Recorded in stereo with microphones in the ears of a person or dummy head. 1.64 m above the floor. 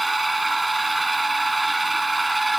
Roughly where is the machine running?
Centre.